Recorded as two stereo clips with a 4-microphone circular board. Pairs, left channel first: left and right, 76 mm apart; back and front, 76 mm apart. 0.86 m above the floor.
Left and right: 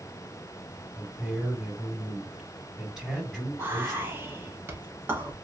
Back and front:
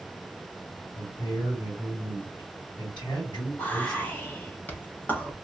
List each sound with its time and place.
0.9 s a man speaking: straight behind, 2.5 m
3.6 s whispering: 130° right, 1.0 m